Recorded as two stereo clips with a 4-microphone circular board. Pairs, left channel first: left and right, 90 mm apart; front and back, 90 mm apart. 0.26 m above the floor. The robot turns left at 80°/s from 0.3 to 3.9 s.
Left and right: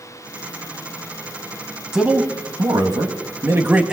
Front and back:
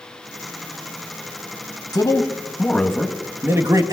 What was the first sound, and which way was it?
A man speaking, 10° right.